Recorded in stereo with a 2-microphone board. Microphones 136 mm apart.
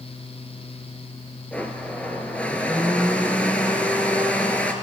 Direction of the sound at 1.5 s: 10° left (ahead or behind).